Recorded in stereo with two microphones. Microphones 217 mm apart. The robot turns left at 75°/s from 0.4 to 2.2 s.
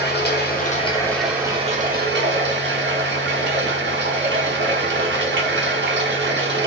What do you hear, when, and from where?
0.0 s running water: 60° left, 1.0 m; by 6.7 s 75° right, 1.0 m